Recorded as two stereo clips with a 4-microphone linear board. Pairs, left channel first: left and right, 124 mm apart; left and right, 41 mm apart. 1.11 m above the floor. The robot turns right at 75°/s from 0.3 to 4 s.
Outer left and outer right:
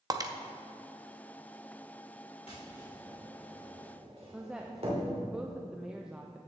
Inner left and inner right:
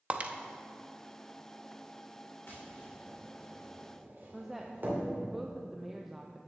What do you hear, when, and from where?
0.1 s breaking glass: 30° right (ahead or behind), 0.7 m
2.5 s tapping: 60° left (ahead or behind), 3 m; by 5.2 s 55° right (ahead or behind), 3 m
4.3 s a woman speaking: 5° right (ahead or behind), 0.6 m